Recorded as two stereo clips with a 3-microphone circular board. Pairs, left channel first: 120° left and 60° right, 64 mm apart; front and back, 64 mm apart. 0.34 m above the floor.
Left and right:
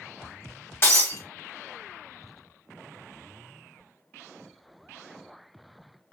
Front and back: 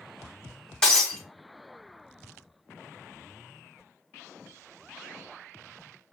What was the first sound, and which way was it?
Breaking glass, 75° left.